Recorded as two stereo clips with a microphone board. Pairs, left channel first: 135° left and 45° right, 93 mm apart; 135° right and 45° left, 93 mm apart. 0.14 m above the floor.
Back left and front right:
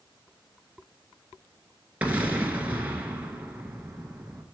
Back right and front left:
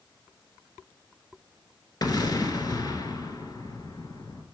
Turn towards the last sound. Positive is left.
turn(degrees=-115)